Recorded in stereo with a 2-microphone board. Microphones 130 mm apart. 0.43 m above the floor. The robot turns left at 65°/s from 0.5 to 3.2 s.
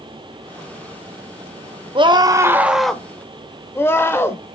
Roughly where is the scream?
Behind right.